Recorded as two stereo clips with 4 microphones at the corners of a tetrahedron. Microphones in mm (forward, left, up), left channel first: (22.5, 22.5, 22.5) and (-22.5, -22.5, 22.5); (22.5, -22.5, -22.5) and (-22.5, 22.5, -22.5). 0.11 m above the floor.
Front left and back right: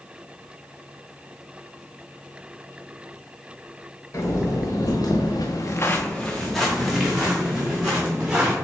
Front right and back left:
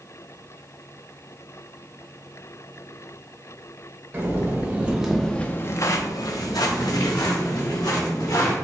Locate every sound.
4.1 s footsteps: 85° left, 1.5 m; by 8.6 s 60° right, 3 m